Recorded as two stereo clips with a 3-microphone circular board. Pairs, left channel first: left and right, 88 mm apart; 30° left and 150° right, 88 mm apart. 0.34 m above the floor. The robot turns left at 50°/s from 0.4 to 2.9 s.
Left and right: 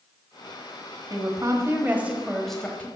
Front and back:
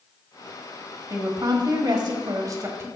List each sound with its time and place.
1.1 s a woman speaking: 115° right, 1.3 m; by 2.9 s 155° left, 1.3 m